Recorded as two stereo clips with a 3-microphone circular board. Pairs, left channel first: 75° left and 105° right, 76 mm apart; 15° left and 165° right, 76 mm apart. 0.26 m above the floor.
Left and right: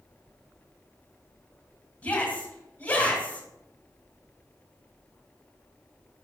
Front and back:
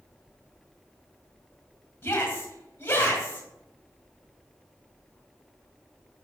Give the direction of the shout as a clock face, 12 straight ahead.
11 o'clock.